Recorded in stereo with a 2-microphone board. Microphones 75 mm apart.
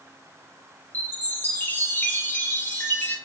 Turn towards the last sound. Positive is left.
turn(degrees=25)  # may be behind; listen again after turning